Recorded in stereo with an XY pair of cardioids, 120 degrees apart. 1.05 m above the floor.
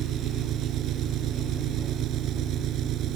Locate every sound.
0.0 s an engine running: 65° right